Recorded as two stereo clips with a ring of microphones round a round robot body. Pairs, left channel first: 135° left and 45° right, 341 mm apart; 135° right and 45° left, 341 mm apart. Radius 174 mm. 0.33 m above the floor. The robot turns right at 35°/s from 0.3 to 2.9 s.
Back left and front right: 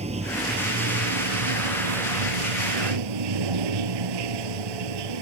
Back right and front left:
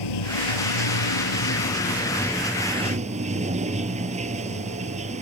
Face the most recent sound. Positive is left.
turn(degrees=-25)